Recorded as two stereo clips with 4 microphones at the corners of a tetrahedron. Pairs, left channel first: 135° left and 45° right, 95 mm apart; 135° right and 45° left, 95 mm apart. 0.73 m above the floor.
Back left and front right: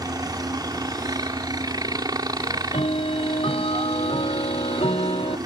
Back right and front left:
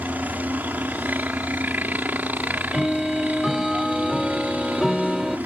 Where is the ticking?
135° left.